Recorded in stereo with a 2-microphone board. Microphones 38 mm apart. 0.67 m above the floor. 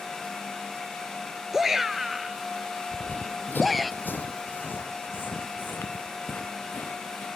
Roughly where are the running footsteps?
Left.